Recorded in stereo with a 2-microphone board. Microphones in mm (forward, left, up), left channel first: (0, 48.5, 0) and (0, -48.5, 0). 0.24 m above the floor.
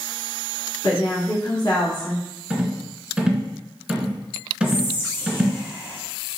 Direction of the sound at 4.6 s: 25° left (ahead or behind).